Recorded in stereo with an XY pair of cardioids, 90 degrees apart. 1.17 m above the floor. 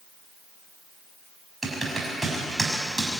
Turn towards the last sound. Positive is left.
turn(degrees=-20)